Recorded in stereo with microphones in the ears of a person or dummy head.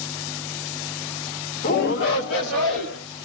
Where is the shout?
20° left (ahead or behind), 0.6 m; by 3.0 s 65° left (ahead or behind), 2 m.